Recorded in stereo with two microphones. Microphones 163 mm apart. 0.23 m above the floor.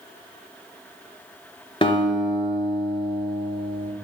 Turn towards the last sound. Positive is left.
turn(degrees=30)  # may be behind; listen again after turning